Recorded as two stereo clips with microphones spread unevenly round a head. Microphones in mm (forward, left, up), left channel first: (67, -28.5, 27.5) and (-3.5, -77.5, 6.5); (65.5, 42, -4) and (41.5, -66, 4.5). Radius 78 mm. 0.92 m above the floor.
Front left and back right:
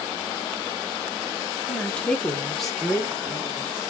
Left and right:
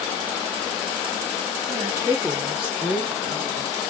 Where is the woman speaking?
55° right, 1.0 m; by 3.9 s 145° left, 1.3 m.